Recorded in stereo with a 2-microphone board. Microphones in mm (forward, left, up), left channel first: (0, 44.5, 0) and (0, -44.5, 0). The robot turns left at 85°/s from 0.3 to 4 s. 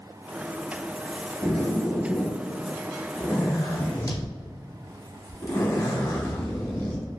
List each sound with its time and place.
1.4 s a zipper: 70° right, 0.9 m; by 7.1 s 70° left, 0.9 m